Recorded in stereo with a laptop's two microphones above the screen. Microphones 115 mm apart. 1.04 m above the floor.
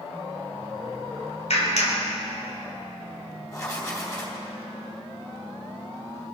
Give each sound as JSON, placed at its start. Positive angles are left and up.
{"t": 1.5, "sound": "a clap", "side_deg": 75, "distance_m": 3.5}
{"t": 3.5, "sound": "writing", "side_deg": 25, "distance_m": 2.5}